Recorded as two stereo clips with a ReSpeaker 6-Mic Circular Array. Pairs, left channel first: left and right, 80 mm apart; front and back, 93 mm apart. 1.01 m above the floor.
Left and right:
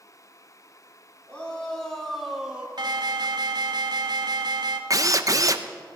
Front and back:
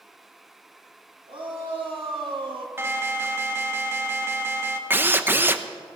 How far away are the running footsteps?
I don't hear running footsteps.